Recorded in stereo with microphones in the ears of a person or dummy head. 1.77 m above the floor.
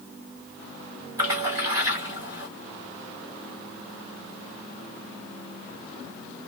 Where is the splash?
20° right (ahead or behind), 1.2 m.